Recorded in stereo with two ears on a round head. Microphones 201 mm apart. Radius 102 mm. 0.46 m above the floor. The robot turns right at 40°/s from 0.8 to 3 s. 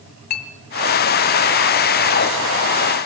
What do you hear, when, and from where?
0.3 s a clink: 40° left (ahead or behind), 2.5 m